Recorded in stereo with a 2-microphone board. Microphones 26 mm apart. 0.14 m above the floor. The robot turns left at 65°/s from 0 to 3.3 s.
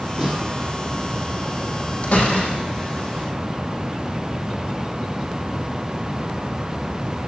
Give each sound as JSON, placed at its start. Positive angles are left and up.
{"t": 0.2, "sound": "a snare drum", "side_deg": -30, "distance_m": 4.5}
{"t": 2.0, "sound": "a door slam", "azimuth_deg": 120, "distance_m": 3.5}